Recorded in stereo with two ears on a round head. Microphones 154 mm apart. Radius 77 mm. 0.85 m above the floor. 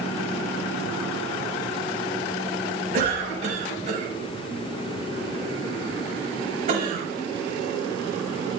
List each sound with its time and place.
2.9 s a cough: 40° right (ahead or behind), 6 m